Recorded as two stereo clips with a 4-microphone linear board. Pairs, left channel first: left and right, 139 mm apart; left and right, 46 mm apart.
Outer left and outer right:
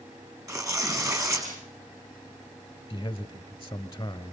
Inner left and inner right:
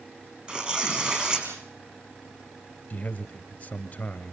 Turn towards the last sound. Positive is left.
turn(degrees=25)  # may be behind; listen again after turning